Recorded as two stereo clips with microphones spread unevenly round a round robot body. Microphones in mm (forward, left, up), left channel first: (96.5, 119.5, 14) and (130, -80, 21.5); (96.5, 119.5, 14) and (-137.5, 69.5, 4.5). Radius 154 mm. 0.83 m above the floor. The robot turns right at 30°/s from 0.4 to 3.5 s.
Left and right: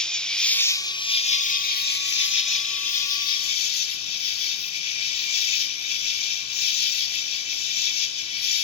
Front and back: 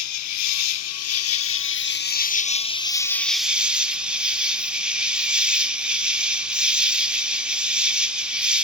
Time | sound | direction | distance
0.0 | an insect | 10° left | 1.0 m